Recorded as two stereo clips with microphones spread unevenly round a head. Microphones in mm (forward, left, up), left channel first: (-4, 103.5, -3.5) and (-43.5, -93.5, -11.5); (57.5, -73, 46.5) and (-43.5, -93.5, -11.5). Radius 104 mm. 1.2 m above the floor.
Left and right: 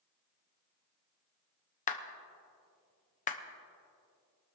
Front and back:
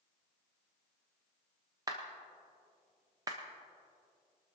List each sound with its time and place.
1.9 s a clap: 135° left, 0.9 m